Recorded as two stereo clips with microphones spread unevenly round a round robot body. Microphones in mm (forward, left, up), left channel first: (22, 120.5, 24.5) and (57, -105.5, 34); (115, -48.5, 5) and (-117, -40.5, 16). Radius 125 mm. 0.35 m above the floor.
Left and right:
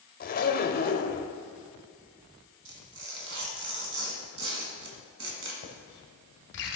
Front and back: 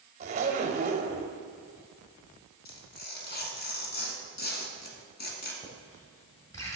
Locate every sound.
0.2 s a zipper: 125° left, 0.7 m
2.6 s tearing paper: 50° right, 1.6 m
5.6 s writing: 75° left, 1.4 m